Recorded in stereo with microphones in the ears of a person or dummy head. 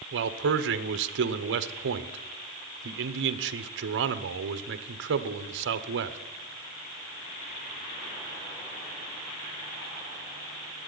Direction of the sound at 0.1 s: 70° right (ahead or behind).